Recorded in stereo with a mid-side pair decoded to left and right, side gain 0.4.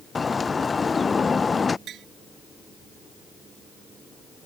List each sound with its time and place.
0.1 s a bird: 35° left
1.9 s tapping: 65° right